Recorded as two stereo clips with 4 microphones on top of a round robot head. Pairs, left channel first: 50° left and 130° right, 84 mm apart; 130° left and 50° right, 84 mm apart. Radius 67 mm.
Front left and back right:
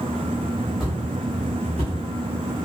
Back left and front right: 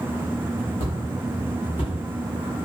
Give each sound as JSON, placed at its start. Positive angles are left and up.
{"t": 0.8, "sound": "footsteps", "azimuth_deg": 140, "distance_m": 1.2}